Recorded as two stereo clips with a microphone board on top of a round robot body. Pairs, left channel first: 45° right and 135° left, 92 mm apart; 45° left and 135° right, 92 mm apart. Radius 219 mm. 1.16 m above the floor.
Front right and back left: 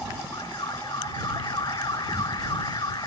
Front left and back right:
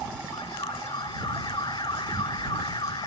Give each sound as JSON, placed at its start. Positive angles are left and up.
{"t": 0.3, "sound": "an alarm", "azimuth_deg": 0}